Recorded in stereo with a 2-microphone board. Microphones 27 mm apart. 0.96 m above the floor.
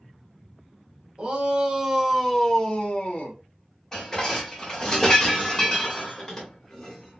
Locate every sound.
1.2 s a shout: 40° right (ahead or behind), 1.0 m; by 3.4 s 50° left (ahead or behind), 0.9 m
3.9 s dishes clattering: 25° left (ahead or behind), 1.2 m